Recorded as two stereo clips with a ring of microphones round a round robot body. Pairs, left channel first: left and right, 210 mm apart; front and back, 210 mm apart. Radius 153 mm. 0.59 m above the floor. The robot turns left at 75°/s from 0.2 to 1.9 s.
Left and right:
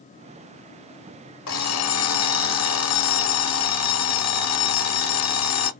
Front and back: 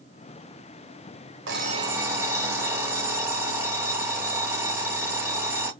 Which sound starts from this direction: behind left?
An alarm clock, at 1.5 s.